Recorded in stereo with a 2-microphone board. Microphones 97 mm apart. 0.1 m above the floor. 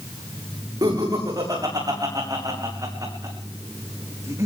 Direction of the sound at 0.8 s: 45° right (ahead or behind).